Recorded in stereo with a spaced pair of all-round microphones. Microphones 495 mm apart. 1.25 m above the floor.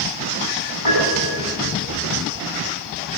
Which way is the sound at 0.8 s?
70° left (ahead or behind).